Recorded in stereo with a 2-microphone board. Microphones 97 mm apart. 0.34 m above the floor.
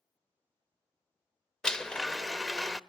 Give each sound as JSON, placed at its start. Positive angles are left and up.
{"t": 1.6, "sound": "a blender", "side_deg": 5, "distance_m": 0.6}